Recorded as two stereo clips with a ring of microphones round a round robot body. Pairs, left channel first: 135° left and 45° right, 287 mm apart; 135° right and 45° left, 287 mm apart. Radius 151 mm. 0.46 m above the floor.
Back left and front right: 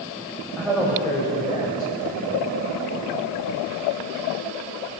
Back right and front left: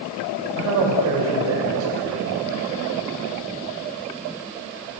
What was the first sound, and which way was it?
A man speaking, 45° left.